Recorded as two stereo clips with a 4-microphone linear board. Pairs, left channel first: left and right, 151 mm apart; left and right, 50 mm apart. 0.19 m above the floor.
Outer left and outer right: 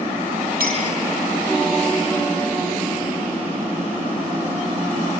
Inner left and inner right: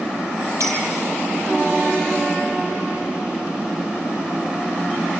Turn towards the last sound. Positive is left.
turn(degrees=-80)